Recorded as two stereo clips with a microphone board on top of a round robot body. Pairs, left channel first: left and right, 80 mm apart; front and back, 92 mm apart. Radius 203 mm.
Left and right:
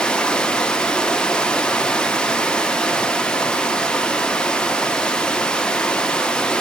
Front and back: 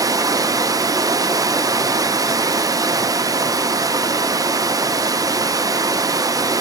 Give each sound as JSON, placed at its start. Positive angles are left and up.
{"t": 0.0, "sound": "running water", "azimuth_deg": 165, "distance_m": 0.7}